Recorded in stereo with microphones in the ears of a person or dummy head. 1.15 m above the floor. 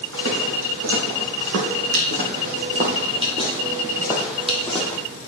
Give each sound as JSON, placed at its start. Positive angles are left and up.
{"t": 0.1, "sound": "footsteps", "side_deg": -70, "distance_m": 4.5}